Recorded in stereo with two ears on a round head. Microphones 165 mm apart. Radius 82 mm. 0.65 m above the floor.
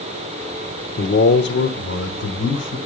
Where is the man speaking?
55° left (ahead or behind), 1.4 m; by 2.8 s 75° left (ahead or behind), 3 m.